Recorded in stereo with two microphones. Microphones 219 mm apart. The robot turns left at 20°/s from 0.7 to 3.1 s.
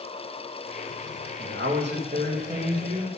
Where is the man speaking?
115° right, 1.8 m; by 3.1 s 150° right, 1.8 m.